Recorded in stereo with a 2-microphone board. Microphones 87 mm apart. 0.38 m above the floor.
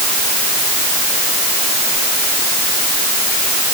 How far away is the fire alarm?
No fire alarm in this recording.